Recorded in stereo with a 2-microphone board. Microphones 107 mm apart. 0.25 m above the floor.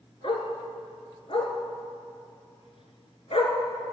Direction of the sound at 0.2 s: 60° left (ahead or behind).